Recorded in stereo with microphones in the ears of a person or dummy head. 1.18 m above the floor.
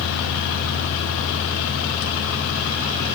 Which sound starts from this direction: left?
A fan, at 0.0 s.